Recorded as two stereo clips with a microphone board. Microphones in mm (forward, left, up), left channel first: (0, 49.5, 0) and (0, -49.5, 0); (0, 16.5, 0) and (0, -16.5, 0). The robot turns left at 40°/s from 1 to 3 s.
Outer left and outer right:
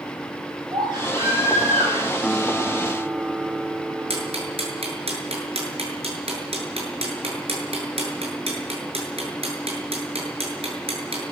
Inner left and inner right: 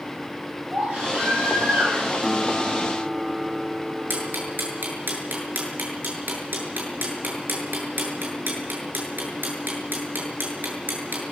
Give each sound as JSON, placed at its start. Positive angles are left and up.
{"t": 0.7, "sound": "a baby crying", "azimuth_deg": -45, "distance_m": 8.5}
{"t": 2.2, "sound": "a guitar", "azimuth_deg": 10, "distance_m": 1.2}
{"t": 4.1, "sound": "ticking", "side_deg": -85, "distance_m": 7.5}